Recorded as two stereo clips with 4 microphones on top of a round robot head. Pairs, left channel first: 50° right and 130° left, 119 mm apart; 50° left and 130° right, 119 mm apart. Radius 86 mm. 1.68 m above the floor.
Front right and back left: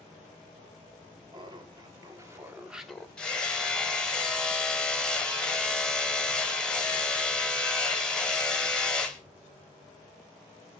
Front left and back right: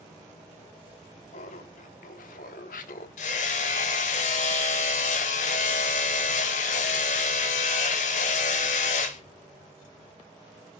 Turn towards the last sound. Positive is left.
turn(degrees=30)